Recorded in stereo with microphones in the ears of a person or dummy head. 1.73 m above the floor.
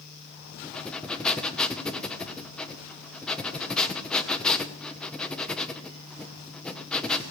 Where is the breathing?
5° left (ahead or behind), 1.0 m.